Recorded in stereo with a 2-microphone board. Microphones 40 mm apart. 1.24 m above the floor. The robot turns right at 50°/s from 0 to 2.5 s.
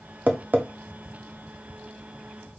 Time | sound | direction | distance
0.3 | tapping | 45° right (ahead or behind) | 0.6 m